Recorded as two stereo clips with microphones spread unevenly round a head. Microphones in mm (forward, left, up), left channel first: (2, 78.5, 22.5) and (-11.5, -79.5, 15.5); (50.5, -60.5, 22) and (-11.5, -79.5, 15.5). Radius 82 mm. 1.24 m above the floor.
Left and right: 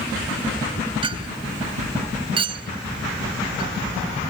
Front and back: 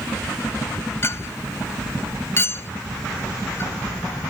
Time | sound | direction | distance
1.0 | a clink | 35° right | ?